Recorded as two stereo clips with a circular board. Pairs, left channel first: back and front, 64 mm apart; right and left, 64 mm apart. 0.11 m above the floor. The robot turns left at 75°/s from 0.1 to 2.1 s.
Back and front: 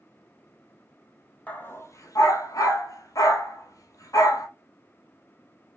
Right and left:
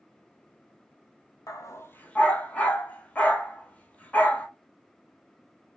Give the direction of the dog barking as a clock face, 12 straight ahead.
4 o'clock.